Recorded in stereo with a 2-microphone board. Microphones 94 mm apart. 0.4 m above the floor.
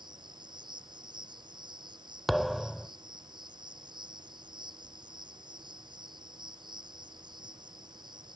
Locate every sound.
0.0 s an insect: 55° right (ahead or behind)
2.3 s a thud: centre (ahead or behind)